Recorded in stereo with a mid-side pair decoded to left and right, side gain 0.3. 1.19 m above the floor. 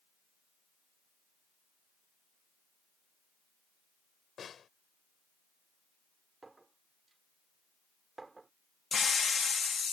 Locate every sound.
4.4 s a snare drum: 70° left
6.4 s a clink: 40° right
8.9 s a hiss: 55° left